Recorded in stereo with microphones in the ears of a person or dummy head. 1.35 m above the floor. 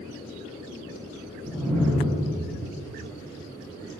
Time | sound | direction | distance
1.4 | a whoosh | 5° right (ahead or behind) | 2 m